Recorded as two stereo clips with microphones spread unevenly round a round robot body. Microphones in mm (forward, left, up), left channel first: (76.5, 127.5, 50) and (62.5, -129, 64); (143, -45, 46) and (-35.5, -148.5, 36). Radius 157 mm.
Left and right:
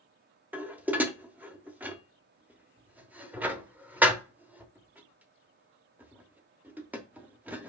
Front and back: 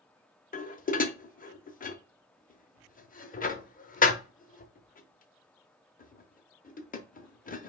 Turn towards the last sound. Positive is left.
turn(degrees=-10)